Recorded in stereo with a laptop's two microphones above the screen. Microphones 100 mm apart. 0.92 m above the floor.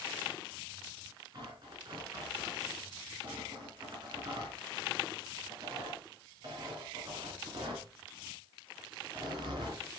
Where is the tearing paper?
50° right (ahead or behind), 4.5 m.